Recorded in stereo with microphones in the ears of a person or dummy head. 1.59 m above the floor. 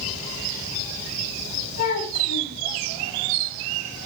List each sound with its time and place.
1.8 s a child speaking: 50° left (ahead or behind), 9.5 m